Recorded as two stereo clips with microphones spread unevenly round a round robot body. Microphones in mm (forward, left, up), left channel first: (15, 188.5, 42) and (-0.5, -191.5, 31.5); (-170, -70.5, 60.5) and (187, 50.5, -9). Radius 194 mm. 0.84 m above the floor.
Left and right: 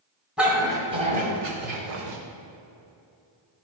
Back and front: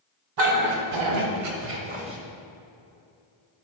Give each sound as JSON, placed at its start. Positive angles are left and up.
{"t": 0.4, "sound": "a dog barking", "azimuth_deg": -5, "distance_m": 2.0}